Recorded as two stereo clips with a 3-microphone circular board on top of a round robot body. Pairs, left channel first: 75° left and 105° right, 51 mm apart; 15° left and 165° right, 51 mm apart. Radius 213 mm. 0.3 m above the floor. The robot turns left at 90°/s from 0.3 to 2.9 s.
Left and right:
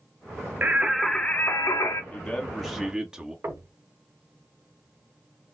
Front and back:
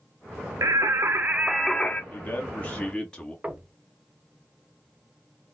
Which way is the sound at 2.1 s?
25° left.